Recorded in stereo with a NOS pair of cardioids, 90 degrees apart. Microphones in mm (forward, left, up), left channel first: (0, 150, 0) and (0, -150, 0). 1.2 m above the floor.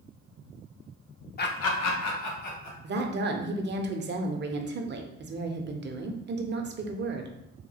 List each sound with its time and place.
1.4 s laughter: 35° left, 0.5 m; by 2.7 s 75° left, 1.6 m
2.8 s a woman speaking: 35° right, 0.6 m